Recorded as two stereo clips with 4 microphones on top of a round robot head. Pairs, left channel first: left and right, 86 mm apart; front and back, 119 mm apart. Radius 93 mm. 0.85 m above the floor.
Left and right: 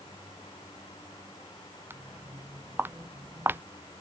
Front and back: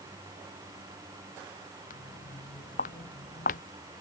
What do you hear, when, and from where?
1.9 s footsteps: 25° right